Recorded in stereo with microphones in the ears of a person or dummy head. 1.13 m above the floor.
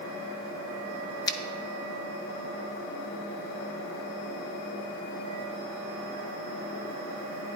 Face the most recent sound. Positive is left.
turn(degrees=20)  # may be behind; listen again after turning